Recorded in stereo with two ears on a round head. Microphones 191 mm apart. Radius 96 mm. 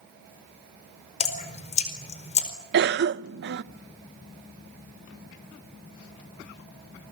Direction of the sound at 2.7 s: 55° right (ahead or behind).